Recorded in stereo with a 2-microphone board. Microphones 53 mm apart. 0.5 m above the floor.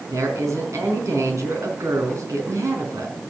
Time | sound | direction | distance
0.1 | a woman speaking | 80° right | 4 m